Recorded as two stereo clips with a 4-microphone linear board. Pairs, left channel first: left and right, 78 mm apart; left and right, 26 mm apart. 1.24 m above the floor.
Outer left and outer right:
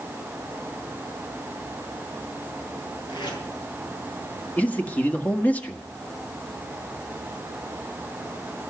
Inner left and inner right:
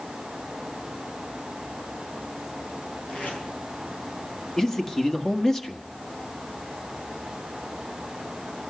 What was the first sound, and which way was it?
Tape being pulled, 75° left (ahead or behind).